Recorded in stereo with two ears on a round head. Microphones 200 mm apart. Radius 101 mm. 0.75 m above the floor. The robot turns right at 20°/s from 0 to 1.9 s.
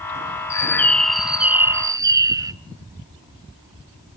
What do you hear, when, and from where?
0.5 s a bird: 15° left (ahead or behind), 0.5 m; by 2.5 s 15° right (ahead or behind), 0.5 m